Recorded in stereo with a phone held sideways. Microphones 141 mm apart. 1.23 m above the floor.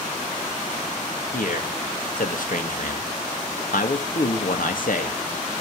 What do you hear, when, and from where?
1.3 s a man speaking: 75° left (ahead or behind), 2.5 m